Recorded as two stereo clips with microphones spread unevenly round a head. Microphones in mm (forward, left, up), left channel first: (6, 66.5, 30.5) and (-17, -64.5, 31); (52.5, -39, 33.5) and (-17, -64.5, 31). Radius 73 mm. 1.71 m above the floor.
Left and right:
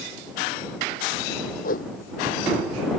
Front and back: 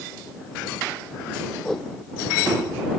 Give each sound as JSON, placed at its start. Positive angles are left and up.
{"t": 1.6, "sound": "a whoosh", "azimuth_deg": 105}